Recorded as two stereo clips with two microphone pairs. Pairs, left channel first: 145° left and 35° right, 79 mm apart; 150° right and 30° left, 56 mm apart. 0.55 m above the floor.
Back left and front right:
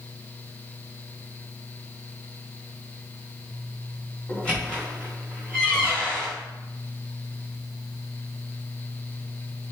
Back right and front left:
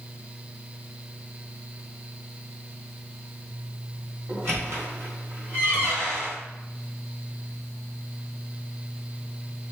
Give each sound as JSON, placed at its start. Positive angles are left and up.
{"t": 4.3, "sound": "a squeak", "azimuth_deg": 70, "distance_m": 1.7}